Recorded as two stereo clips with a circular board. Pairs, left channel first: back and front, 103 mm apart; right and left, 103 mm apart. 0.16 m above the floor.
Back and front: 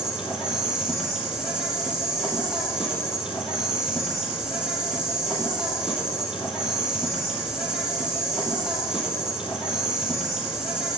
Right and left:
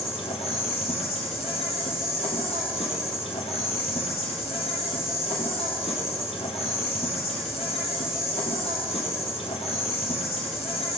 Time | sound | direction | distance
0.0 | an insect | 85° right | 1.0 m